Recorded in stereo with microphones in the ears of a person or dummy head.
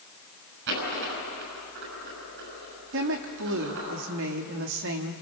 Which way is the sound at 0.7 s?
70° right (ahead or behind).